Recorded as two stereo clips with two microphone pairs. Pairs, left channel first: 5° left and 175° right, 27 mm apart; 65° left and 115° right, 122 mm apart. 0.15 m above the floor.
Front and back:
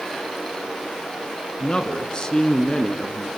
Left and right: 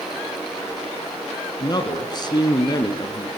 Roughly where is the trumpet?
No trumpet in this recording.